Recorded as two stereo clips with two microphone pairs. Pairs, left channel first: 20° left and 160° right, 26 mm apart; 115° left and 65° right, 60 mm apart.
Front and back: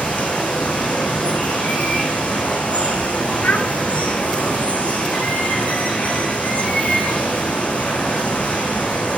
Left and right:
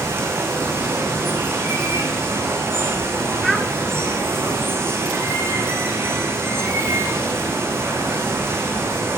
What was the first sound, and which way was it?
Running water, 15° right.